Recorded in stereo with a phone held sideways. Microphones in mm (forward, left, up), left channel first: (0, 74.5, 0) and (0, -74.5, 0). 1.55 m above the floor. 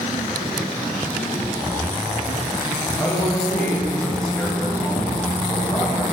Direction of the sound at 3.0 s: 5° left (ahead or behind).